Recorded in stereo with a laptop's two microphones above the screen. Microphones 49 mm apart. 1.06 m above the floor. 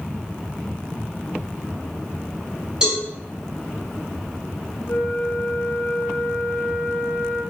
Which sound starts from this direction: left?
A flute, at 4.9 s.